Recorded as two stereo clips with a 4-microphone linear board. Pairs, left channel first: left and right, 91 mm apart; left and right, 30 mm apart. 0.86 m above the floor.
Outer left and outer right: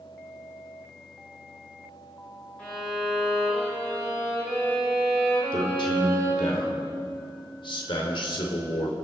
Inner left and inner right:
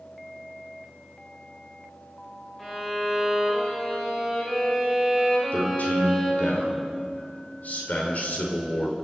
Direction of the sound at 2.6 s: 10° left (ahead or behind).